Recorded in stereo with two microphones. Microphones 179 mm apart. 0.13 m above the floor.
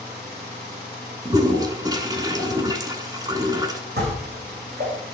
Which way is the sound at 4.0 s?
65° right (ahead or behind).